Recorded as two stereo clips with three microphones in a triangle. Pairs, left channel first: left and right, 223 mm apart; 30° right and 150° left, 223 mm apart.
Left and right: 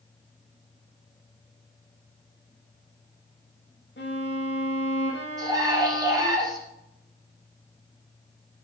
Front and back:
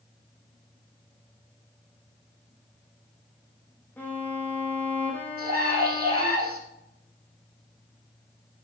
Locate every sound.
4.0 s a violin: 50° left, 3 m
5.4 s a scream: 165° right, 5.5 m